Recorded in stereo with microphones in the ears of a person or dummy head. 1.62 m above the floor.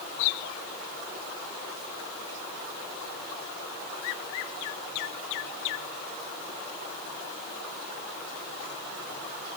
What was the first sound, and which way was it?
Only background noise.